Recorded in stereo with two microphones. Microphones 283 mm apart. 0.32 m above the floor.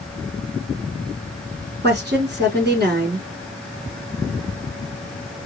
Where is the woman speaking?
35° right (ahead or behind), 4 m.